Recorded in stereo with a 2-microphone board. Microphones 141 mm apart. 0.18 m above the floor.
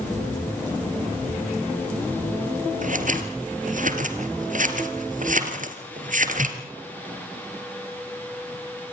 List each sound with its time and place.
2.8 s scissors: 65° right (ahead or behind), 2 m